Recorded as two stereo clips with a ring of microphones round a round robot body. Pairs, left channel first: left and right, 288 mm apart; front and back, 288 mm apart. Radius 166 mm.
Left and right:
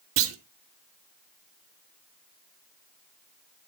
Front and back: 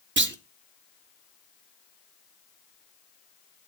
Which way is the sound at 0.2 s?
130° right.